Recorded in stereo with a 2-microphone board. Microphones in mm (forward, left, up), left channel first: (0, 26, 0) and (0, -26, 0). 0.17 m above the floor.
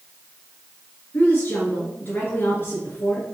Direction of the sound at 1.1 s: 40° left (ahead or behind).